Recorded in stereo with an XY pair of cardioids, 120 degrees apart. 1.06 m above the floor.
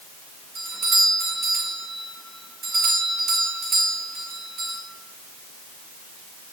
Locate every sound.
0.6 s a doorbell: 50° right, 4 m